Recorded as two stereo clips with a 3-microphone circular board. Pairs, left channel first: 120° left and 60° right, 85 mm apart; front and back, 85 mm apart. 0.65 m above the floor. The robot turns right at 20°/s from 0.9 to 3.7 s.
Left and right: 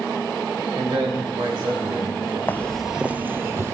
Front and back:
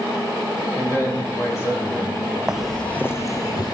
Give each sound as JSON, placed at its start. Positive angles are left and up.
{"t": 0.8, "sound": "a man speaking", "azimuth_deg": -65, "distance_m": 3.5}
{"t": 2.5, "sound": "footsteps", "azimuth_deg": 110, "distance_m": 0.6}